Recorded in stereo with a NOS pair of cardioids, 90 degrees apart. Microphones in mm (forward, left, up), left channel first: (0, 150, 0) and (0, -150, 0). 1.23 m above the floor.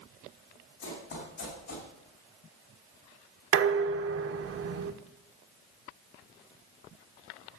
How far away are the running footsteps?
About 5.5 m.